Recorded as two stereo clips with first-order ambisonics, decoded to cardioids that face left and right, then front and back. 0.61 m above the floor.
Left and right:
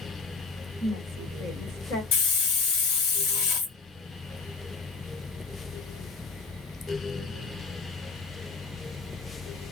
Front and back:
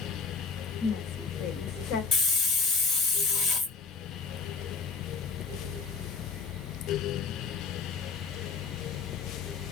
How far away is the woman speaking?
About 2 m.